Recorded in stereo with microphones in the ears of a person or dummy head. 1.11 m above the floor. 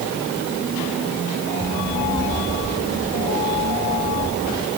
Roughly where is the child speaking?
Centre.